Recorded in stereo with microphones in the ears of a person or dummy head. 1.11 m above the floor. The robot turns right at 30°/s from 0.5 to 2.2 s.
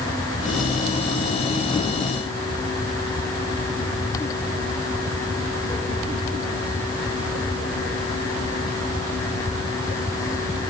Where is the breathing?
I don't hear breathing.